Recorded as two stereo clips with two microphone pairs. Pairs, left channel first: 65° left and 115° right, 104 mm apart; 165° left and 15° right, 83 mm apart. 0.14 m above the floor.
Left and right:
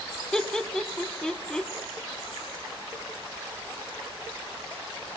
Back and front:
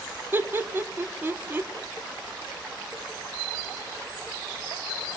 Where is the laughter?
10° right, 1.1 m.